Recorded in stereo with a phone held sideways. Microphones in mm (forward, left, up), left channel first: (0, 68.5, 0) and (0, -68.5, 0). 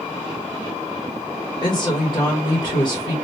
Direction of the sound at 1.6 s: 35° left (ahead or behind).